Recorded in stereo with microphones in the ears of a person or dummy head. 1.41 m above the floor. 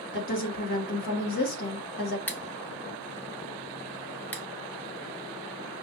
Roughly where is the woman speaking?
Left.